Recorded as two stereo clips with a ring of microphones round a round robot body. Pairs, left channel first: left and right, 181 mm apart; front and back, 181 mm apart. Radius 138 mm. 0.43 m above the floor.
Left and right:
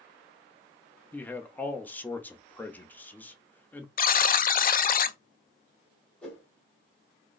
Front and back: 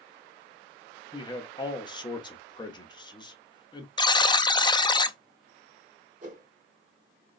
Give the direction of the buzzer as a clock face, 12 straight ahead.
10 o'clock.